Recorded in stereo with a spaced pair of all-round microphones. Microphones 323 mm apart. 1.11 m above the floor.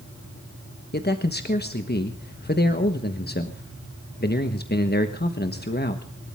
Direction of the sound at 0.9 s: 30° left (ahead or behind).